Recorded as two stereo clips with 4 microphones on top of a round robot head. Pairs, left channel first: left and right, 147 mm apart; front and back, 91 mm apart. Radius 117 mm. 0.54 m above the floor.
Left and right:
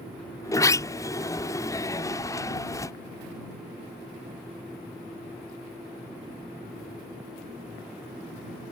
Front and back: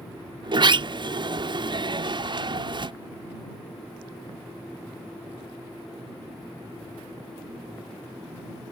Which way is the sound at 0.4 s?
155° left.